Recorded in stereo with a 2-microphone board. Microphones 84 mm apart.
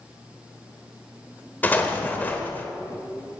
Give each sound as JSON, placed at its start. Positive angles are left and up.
{"t": 1.6, "sound": "an explosion", "side_deg": 20, "distance_m": 1.2}